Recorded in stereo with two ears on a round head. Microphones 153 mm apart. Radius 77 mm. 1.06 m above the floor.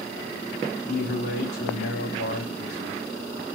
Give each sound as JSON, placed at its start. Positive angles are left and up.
{"t": 0.9, "sound": "a man speaking", "side_deg": 65, "distance_m": 3.0}